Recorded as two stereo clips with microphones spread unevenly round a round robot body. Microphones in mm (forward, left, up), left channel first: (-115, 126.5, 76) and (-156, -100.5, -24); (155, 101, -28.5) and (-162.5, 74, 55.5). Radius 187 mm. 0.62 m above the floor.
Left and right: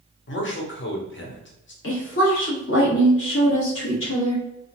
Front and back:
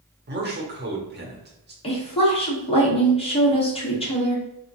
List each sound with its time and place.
0.3 s a man speaking: 125° left, 1.2 m
1.8 s a woman speaking: 35° left, 1.4 m